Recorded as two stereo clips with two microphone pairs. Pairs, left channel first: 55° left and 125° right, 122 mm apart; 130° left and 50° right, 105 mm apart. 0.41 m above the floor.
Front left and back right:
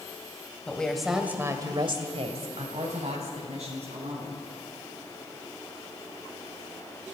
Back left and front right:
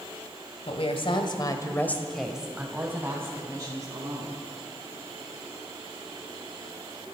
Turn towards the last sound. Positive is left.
turn(degrees=-100)